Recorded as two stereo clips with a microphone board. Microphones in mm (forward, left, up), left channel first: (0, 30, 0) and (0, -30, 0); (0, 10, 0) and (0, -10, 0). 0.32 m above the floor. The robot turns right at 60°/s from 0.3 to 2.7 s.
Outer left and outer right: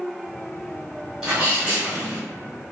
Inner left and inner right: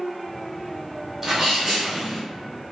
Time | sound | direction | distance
1.2 | a sneeze | 10° right (ahead or behind) | 1.5 m